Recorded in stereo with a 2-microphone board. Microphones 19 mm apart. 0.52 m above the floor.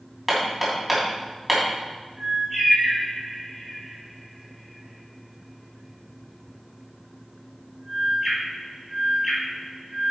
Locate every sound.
0.3 s hammering: 10° right (ahead or behind), 3 m
2.2 s a bird: 15° right (ahead or behind), 3.5 m